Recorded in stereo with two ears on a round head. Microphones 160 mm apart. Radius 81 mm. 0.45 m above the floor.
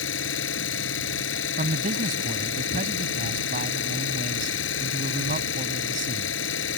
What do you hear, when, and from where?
0.0 s an engine running: 85° left
1.6 s a man speaking: 50° right (ahead or behind)